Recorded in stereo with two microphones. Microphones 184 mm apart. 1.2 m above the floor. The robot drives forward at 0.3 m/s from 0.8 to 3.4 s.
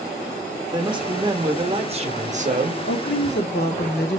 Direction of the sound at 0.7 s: 25° right (ahead or behind).